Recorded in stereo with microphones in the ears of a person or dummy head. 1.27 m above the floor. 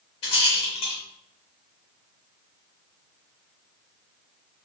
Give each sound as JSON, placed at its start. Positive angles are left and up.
{"t": 0.2, "sound": "a rattle", "side_deg": 30, "distance_m": 1.0}